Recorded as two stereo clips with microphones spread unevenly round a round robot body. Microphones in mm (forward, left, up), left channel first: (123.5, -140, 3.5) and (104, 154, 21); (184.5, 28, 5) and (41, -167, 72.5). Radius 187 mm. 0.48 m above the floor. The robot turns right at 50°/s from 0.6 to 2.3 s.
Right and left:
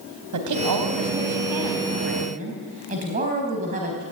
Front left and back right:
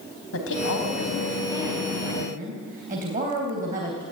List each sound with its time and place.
0.3 s a woman speaking: 80° left, 4 m; by 4.0 s 165° left, 4 m